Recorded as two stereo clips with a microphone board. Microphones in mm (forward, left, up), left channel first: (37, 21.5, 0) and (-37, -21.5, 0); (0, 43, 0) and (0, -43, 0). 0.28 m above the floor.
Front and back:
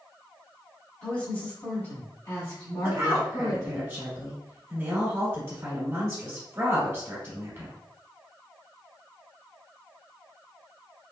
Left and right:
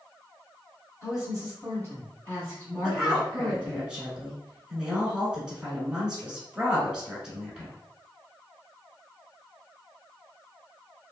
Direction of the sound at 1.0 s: 100° left.